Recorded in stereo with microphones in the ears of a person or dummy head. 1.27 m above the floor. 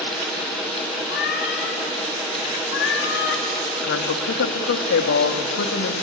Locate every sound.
1.1 s a cat meowing: 65° left (ahead or behind), 3.5 m; by 3.5 s 60° left (ahead or behind), 3.5 m
3.8 s a woman speaking: 60° left (ahead or behind), 1.8 m